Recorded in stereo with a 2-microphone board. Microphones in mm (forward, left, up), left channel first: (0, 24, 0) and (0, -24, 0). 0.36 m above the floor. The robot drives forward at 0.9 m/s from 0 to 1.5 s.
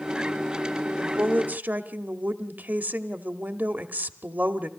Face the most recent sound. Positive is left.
turn(degrees=-45)  # may be behind; listen again after turning